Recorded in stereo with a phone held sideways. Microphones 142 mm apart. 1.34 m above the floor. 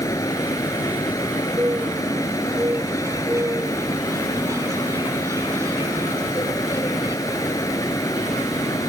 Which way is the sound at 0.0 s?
25° left (ahead or behind).